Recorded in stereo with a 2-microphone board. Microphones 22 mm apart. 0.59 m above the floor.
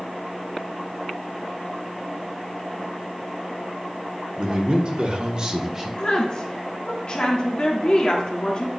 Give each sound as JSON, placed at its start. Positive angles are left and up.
{"t": 4.4, "sound": "a man speaking", "side_deg": -50, "distance_m": 2.0}
{"t": 6.0, "sound": "a woman speaking", "side_deg": 40, "distance_m": 1.3}